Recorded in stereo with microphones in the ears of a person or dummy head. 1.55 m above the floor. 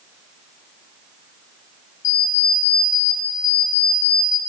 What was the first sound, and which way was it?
An alarm clock, 40° left (ahead or behind).